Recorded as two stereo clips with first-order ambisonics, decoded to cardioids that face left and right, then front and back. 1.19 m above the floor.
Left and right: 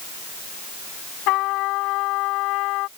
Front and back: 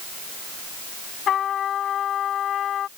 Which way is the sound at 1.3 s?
60° left.